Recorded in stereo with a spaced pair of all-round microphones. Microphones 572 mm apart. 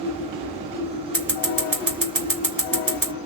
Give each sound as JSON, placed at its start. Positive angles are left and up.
{"t": 0.0, "sound": "a machine running", "side_deg": -10, "distance_m": 1.2}
{"t": 1.1, "sound": "scissors", "side_deg": -35, "distance_m": 1.9}